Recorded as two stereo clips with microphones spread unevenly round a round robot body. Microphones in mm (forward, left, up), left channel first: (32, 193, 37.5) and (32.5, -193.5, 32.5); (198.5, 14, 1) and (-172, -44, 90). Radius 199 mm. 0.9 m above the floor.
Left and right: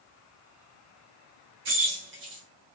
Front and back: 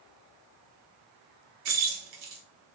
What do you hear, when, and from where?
1.6 s keys jangling: 155° right, 0.8 m